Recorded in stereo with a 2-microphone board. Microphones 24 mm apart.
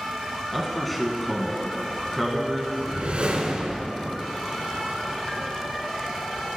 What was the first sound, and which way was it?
A man speaking, centre (ahead or behind).